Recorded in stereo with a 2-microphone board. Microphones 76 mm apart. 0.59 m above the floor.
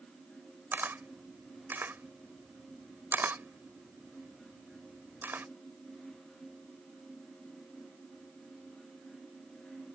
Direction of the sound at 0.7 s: 30° right (ahead or behind).